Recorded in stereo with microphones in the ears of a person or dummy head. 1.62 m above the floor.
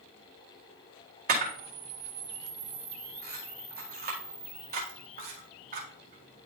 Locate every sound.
1.3 s a camera shutter: 45° right (ahead or behind), 1.9 m